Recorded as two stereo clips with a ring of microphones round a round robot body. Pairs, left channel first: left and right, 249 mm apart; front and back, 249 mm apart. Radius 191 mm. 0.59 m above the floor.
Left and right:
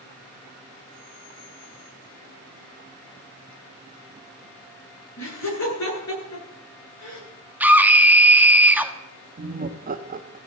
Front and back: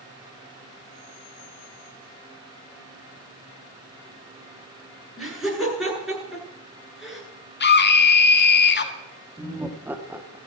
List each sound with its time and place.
5.2 s laughter: 90° left, 8.5 m
7.6 s a scream: 10° right, 1.5 m
9.4 s laughter: 100° right, 0.9 m